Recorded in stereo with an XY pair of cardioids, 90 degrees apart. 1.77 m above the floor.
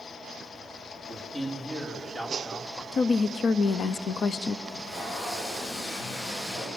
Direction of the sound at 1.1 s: 40° left.